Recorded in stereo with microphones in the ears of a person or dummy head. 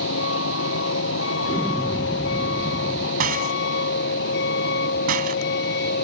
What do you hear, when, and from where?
0.0 s a vehicle: 80° left; by 6.0 s 65° left (ahead or behind)
1.4 s an explosion: 15° left (ahead or behind)
3.2 s a rattle: 45° right (ahead or behind)